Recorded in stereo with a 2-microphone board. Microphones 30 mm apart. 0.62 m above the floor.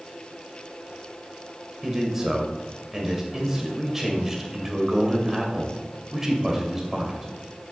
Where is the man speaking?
15° right (ahead or behind), 2.5 m.